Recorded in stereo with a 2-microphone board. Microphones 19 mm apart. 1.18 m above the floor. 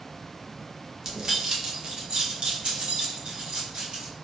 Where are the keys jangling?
35° right (ahead or behind), 0.8 m; by 4.1 s 75° right (ahead or behind), 1.8 m.